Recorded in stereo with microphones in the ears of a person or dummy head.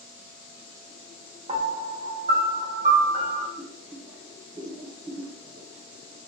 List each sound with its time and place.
1.5 s a piano: 35° right (ahead or behind), 0.8 m
3.6 s boiling: 45° right (ahead or behind), 0.9 m